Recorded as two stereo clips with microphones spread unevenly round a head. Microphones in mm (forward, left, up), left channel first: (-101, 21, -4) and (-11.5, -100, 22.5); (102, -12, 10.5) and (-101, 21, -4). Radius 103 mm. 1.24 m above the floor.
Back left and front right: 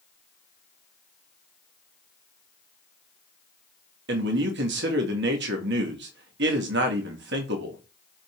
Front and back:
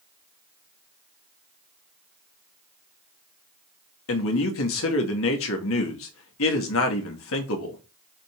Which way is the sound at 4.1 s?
35° right.